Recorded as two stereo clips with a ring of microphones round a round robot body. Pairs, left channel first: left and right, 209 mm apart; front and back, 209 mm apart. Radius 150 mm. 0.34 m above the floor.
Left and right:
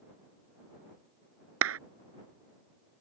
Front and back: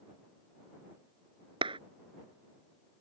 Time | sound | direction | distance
1.6 | a clap | 105° right | ?